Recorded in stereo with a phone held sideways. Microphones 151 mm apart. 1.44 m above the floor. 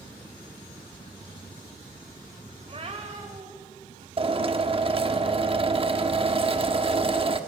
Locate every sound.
2.6 s a cat meowing: 40° right (ahead or behind), 2.5 m; by 4.1 s 35° right (ahead or behind), 4 m
4.2 s a drill: 35° right (ahead or behind), 1.1 m